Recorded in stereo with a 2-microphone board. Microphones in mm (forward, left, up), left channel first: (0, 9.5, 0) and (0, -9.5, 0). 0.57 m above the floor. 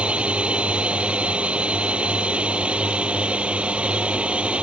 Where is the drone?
75° right (ahead or behind).